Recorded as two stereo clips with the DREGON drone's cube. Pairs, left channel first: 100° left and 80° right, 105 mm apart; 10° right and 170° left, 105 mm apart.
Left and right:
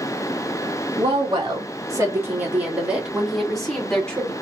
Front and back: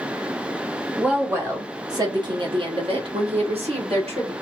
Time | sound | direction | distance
1.0 | a woman speaking | 115° right | 1.4 m